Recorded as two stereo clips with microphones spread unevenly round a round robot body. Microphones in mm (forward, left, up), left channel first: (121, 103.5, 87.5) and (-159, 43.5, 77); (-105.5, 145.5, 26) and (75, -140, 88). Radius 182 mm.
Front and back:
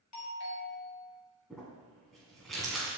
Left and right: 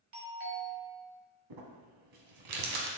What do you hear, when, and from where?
0.1 s a doorbell: 5° right, 2.5 m
1.5 s crumpling: 80° right, 1.4 m